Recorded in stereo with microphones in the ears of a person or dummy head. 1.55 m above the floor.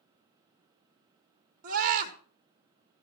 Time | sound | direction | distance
1.6 | a scream | 50° right (ahead or behind) | 3 m